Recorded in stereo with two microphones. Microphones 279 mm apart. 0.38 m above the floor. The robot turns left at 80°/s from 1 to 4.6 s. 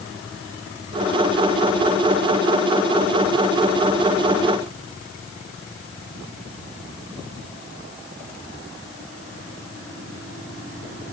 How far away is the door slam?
I don't hear a door slam.